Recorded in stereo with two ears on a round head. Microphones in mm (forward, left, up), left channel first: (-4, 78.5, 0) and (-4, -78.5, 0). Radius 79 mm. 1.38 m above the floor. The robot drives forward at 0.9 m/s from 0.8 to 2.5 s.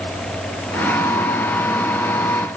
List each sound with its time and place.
Only background noise.